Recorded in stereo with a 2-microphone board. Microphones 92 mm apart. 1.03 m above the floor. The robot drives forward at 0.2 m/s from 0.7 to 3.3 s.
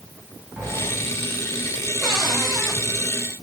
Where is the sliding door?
10° right (ahead or behind), 7.5 m.